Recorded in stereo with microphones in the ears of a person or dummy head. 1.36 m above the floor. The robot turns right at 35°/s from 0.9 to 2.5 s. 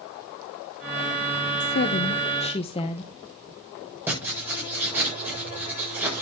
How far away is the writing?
About 7.5 m.